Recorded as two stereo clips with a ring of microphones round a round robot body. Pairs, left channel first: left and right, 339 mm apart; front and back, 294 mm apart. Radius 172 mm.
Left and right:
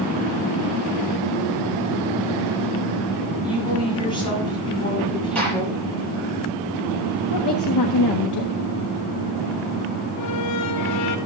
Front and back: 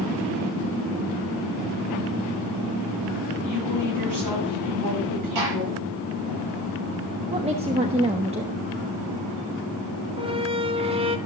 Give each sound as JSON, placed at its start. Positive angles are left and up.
{"t": 3.4, "sound": "a woman speaking", "azimuth_deg": 165, "distance_m": 7.5}
{"t": 5.3, "sound": "a gunshot", "azimuth_deg": 175, "distance_m": 9.0}
{"t": 7.3, "sound": "a woman speaking", "azimuth_deg": 110, "distance_m": 1.4}
{"t": 10.2, "sound": "a squeak", "azimuth_deg": 110, "distance_m": 1.4}